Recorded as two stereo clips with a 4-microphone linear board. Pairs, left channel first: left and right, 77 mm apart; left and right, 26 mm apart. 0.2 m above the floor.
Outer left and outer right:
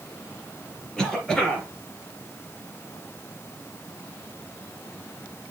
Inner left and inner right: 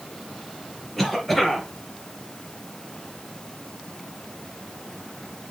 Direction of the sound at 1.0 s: 10° left (ahead or behind).